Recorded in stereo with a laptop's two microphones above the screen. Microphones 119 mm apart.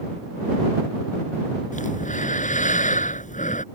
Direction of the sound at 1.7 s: 80° left.